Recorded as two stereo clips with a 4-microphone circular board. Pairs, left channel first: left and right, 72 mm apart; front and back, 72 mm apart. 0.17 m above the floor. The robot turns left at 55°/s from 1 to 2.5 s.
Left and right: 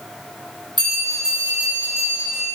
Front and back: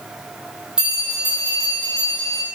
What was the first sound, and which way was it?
A bell, 100° right.